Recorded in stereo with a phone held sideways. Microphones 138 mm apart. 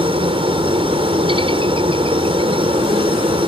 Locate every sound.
0.0 s a helicopter: 40° right (ahead or behind)